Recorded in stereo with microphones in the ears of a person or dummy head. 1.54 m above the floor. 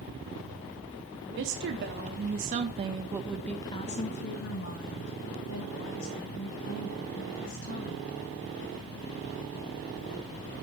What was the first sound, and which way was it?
A woman speaking, 60° right (ahead or behind).